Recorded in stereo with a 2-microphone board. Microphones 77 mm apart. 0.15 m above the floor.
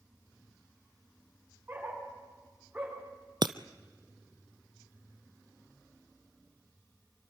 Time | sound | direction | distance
1.7 | a dog barking | 25° right (ahead or behind) | 8.5 m
3.4 | breaking glass | 80° right | 0.6 m